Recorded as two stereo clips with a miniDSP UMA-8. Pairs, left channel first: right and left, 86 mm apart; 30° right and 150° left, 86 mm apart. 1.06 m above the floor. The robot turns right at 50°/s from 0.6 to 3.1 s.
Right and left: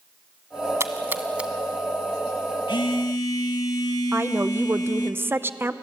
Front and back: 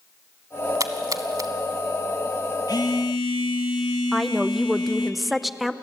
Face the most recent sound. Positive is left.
turn(degrees=60)